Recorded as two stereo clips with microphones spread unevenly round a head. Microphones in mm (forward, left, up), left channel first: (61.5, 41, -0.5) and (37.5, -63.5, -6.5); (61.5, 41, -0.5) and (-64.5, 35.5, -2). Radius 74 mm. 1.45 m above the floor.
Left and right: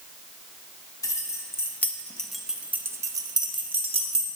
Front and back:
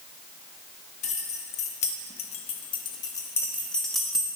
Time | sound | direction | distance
1.0 | keys jangling | 25° left | 1.4 m